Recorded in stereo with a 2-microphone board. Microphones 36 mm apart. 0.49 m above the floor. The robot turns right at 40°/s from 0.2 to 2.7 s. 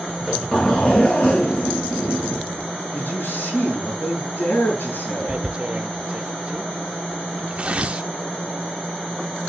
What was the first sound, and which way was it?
A zipper, straight ahead.